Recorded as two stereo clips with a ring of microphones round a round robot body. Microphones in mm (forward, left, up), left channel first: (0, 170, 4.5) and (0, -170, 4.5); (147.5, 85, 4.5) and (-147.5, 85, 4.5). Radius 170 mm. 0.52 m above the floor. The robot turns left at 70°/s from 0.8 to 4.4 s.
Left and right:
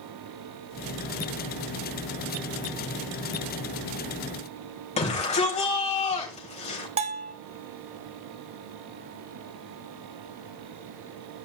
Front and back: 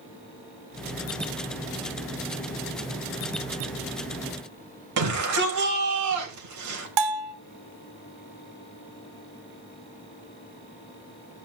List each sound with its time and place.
5.0 s a shout: 160° left, 3.5 m
7.0 s a bell: 165° right, 0.7 m